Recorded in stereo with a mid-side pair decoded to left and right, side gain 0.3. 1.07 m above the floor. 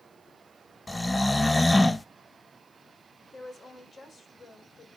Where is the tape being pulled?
No tape being pulled in this recording.